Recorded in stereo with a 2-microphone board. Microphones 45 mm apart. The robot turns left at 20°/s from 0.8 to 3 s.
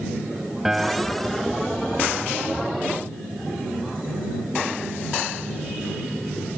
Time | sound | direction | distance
0.7 | a piano | 10° right (ahead or behind) | ?